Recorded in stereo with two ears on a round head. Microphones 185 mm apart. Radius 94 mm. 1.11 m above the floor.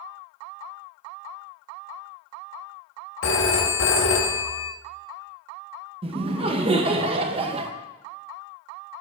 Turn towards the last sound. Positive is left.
turn(degrees=-25)  # may be behind; listen again after turning